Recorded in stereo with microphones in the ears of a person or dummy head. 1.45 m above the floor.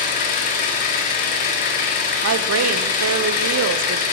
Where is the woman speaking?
80° right, 0.8 m.